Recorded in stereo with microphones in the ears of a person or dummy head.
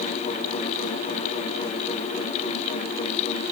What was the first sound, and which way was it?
Only background noise.